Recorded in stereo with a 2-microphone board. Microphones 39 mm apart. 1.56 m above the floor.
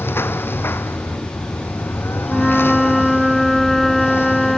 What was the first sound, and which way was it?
A lawn mower, 80° left.